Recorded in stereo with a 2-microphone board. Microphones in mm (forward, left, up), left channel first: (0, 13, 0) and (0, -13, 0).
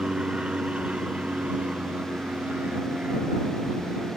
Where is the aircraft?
45° right (ahead or behind); by 4.2 s 75° right (ahead or behind).